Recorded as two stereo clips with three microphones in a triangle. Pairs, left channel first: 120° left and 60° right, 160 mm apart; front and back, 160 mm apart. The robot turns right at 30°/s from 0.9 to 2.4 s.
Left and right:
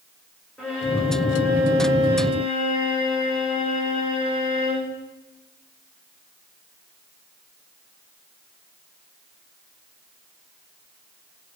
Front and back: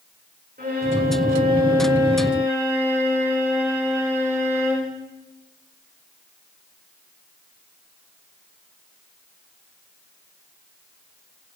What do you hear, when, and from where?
0.6 s a violin: 150° right, 9 m; by 5.0 s 105° right, 9 m